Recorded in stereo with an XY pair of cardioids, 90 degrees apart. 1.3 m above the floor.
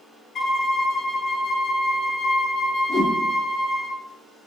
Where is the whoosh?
50° left, 1.3 m.